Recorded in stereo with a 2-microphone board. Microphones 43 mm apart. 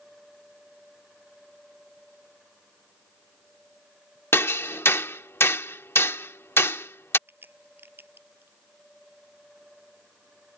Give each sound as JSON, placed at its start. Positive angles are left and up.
{"t": 4.3, "sound": "hammering", "side_deg": 70}
{"t": 7.3, "sound": "a crack", "side_deg": -50}